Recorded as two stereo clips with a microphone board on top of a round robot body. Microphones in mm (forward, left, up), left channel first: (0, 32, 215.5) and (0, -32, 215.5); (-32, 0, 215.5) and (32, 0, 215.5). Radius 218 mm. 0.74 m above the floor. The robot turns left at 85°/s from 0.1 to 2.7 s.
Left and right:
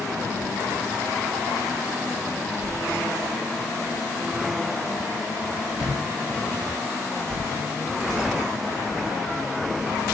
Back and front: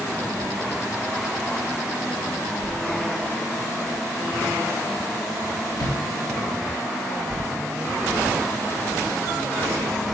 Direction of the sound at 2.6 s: 160° right.